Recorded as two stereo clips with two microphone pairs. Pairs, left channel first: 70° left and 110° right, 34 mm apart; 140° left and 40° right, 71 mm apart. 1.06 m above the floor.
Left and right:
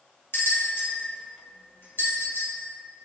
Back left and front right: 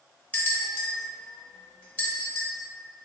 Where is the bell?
75° left, 1.1 m.